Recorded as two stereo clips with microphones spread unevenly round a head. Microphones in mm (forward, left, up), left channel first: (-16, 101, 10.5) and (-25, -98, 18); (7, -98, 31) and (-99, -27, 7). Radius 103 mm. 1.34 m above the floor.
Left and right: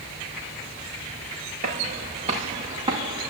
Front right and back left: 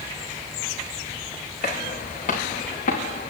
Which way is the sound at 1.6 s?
35° right.